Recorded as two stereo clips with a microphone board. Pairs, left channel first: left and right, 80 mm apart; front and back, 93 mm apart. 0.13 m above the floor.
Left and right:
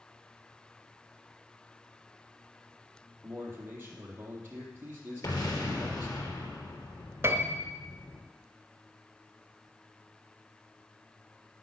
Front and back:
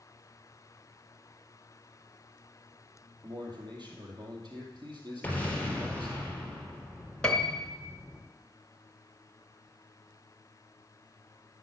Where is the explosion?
70° left, 3.5 m.